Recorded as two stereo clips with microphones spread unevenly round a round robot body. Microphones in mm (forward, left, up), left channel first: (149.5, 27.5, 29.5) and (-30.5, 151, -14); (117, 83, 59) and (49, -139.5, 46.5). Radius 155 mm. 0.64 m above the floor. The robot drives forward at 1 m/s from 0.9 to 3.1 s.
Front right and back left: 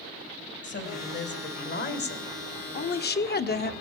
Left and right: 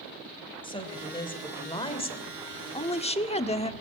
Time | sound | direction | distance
0.6 | a woman speaking | 5° left | 4 m